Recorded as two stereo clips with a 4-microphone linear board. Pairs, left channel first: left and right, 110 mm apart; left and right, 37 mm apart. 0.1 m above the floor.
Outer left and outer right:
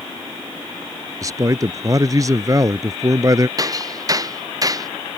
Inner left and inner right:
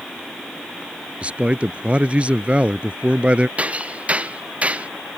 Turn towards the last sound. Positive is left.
turn(degrees=-35)  # may be behind; listen again after turning